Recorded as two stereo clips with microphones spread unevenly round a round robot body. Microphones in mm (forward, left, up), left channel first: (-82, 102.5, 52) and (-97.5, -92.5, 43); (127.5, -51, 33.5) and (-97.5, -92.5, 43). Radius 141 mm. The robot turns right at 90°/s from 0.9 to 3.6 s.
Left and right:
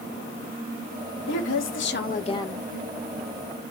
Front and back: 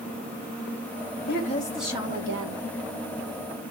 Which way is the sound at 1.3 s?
55° left.